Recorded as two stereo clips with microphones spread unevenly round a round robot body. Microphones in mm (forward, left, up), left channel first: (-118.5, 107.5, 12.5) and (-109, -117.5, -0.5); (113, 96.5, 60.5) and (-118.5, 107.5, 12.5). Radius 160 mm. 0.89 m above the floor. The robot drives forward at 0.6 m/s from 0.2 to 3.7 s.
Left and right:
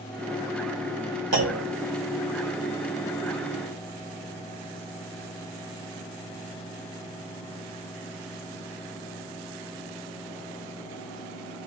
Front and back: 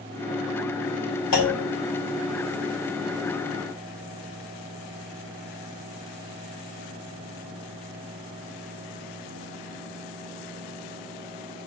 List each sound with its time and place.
1.3 s a clunk: 40° right, 2 m